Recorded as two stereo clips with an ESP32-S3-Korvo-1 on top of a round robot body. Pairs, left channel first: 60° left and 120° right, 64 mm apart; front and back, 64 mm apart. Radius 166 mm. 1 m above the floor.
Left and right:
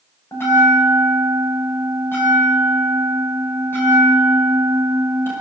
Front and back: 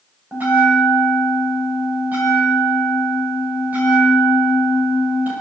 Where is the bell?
115° left, 7 m.